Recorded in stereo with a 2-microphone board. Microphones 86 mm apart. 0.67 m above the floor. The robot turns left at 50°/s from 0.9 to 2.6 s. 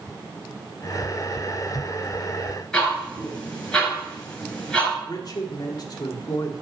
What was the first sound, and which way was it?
Ticking, 10° left (ahead or behind).